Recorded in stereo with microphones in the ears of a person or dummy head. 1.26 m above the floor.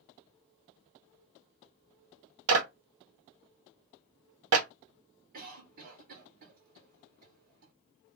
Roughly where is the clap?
Right.